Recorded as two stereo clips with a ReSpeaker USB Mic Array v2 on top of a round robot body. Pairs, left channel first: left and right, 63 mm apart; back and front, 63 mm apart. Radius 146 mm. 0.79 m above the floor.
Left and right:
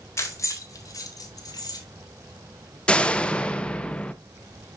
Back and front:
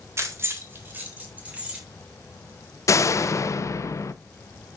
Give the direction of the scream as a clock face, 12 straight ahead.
I don't hear a scream.